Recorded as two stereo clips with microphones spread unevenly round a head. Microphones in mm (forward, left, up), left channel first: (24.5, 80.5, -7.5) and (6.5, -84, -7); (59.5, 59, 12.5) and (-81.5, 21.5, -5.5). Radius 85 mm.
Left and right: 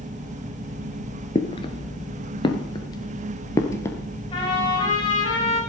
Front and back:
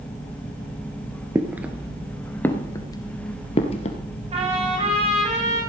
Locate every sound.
1.4 s footsteps: 120° left, 1.9 m; by 4.0 s 15° left, 2.5 m
4.3 s a trumpet: 145° left, 6.5 m